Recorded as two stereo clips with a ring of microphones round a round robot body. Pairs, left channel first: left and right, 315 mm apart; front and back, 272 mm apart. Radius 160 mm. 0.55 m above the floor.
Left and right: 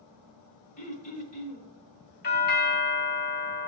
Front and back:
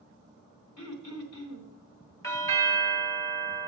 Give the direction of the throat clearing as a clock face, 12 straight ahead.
11 o'clock.